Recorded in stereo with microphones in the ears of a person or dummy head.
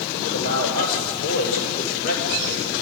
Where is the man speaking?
60° left (ahead or behind), 6 m.